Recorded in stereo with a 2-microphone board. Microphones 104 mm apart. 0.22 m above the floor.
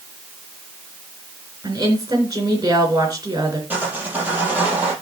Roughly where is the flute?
I don't hear a flute.